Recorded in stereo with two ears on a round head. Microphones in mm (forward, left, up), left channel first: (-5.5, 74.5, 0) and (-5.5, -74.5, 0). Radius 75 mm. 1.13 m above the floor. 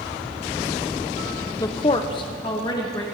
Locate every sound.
1.6 s a woman speaking: 20° left (ahead or behind), 0.5 m; by 3.0 s 25° left (ahead or behind), 1.9 m